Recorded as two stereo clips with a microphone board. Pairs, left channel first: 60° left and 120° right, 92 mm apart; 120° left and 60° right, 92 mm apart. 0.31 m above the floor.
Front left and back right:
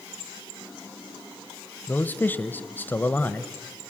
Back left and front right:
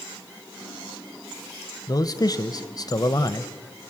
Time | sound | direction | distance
1.9 | a man speaking | 120° left | 1.2 m